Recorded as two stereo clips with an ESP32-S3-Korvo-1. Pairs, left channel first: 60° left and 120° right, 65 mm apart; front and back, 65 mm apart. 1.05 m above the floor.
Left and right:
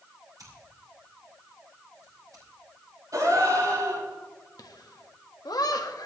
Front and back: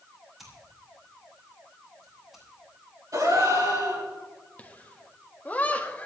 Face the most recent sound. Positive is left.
turn(degrees=65)